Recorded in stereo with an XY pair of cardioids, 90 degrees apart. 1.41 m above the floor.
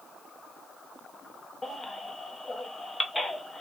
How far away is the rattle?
I don't hear a rattle.